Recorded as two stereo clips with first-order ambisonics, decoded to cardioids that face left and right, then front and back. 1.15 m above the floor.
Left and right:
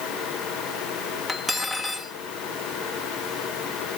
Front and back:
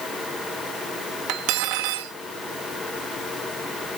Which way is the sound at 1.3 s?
Straight behind.